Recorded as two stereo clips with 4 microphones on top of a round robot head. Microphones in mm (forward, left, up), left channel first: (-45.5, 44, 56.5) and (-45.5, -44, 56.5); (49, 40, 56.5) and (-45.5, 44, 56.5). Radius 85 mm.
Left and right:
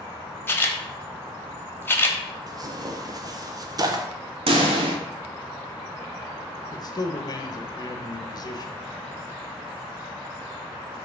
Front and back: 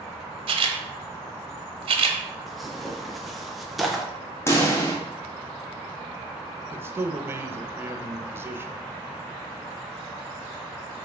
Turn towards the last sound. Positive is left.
turn(degrees=115)